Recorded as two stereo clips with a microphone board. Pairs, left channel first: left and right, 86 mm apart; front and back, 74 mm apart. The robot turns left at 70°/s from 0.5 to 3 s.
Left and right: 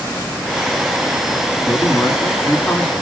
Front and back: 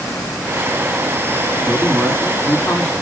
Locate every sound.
1.7 s a man speaking: 110° left, 1.6 m; by 2.9 s 20° left, 1.6 m